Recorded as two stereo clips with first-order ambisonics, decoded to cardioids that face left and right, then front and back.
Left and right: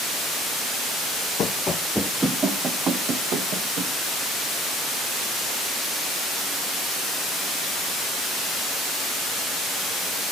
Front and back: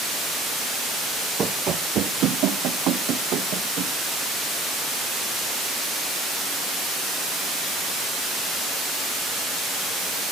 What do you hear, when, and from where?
1.4 s running footsteps: 125° left, 0.9 m; by 3.9 s 135° right, 2.5 m